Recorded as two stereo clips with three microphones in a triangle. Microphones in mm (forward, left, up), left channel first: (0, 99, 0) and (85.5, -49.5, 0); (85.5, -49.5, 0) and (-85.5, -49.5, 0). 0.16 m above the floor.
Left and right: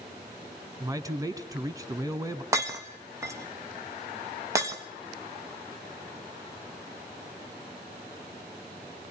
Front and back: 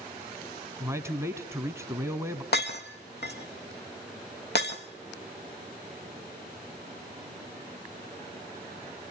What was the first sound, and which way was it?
A man speaking, 115° right.